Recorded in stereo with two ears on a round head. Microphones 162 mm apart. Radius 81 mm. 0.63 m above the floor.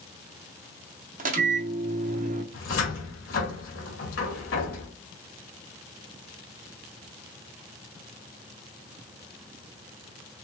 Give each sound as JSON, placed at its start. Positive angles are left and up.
{"t": 1.2, "sound": "a microwave", "side_deg": -45, "distance_m": 0.7}
{"t": 2.5, "sound": "a cupboard door", "side_deg": 80, "distance_m": 1.6}